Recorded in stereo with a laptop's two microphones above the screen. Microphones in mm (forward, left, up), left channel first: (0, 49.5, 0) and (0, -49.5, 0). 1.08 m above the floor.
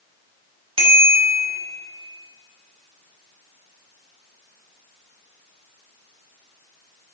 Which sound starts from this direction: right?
A bicycle bell, at 0.8 s.